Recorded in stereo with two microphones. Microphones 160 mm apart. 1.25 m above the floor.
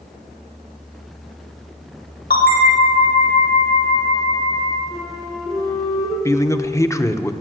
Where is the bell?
75° left (ahead or behind), 4 m.